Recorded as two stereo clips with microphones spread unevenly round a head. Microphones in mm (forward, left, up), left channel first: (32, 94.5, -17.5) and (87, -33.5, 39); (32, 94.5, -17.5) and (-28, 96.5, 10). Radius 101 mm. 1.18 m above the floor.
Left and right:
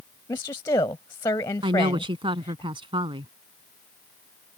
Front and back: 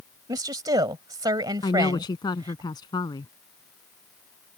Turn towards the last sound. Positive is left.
turn(degrees=-15)